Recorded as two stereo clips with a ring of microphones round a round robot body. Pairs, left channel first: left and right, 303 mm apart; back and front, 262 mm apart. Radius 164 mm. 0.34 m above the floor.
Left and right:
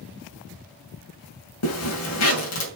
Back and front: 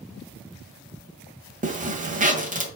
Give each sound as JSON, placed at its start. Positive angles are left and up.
{"t": 1.6, "sound": "a zipper", "azimuth_deg": 60, "distance_m": 1.9}